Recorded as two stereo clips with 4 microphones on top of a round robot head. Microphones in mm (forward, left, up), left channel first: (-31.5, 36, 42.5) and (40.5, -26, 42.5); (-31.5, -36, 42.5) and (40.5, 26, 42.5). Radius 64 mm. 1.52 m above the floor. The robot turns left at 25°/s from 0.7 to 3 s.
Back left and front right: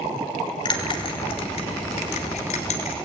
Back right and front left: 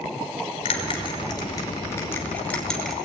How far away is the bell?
About 3 m.